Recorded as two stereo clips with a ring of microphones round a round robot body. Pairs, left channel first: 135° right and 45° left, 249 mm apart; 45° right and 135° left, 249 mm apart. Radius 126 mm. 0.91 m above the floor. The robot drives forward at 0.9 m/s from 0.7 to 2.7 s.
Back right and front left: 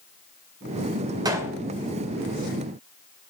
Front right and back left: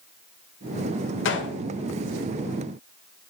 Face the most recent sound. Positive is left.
turn(degrees=-145)